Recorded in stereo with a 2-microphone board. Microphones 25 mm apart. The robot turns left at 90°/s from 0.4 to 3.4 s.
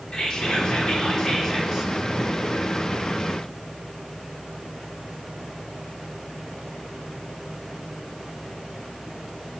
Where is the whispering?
125° left, 0.9 m; by 1.9 s 15° right, 0.9 m.